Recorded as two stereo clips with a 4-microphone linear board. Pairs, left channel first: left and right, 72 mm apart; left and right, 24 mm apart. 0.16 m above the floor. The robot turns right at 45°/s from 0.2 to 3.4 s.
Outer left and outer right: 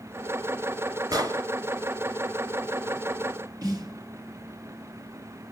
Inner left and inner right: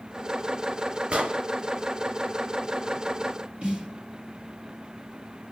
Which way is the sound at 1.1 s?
55° right (ahead or behind).